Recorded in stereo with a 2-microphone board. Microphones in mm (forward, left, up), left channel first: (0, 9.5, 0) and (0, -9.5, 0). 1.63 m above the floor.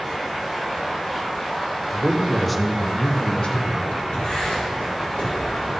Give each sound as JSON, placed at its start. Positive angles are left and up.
{"t": 1.9, "sound": "a man speaking", "side_deg": -20, "distance_m": 1.4}
{"t": 4.1, "sound": "writing", "side_deg": 80, "distance_m": 4.5}